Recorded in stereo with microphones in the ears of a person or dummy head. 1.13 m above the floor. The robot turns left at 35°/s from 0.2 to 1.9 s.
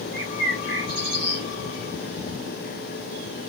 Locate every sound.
0.1 s a bird: 60° right, 3.5 m; by 1.4 s 100° right, 3.5 m